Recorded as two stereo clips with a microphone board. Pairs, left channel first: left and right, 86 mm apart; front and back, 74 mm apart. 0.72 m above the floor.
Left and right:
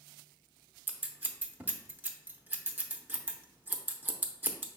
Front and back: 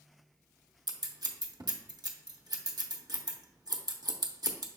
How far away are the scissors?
About 0.6 m.